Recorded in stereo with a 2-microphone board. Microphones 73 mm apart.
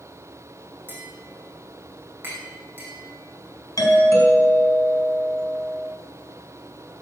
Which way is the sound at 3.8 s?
55° left (ahead or behind).